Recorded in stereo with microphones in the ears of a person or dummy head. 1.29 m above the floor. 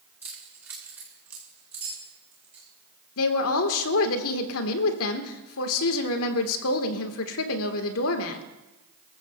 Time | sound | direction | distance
0.2 | keys jangling | 10° right (ahead or behind) | 2.5 m
3.2 | a woman speaking | 75° left (ahead or behind) | 1.5 m